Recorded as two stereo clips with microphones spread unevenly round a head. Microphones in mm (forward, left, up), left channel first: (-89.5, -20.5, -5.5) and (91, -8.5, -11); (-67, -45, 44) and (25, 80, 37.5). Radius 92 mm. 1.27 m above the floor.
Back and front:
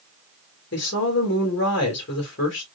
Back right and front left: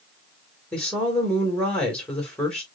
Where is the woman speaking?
150° left, 2 m.